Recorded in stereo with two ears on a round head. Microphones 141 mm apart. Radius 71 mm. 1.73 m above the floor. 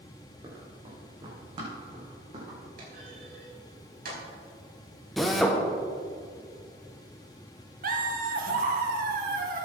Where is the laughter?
60° right (ahead or behind), 2.0 m.